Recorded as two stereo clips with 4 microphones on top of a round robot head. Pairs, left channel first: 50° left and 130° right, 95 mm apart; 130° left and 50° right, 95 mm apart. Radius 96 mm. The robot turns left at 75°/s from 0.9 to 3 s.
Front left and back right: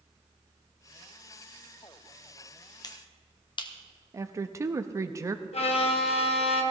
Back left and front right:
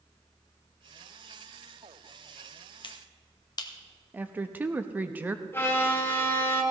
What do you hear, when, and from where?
2.8 s a finger snap: 95° left, 1.2 m; by 3.7 s 85° left, 1.2 m
4.1 s a woman speaking: 110° right, 0.6 m
5.5 s a violin: 60° left, 1.4 m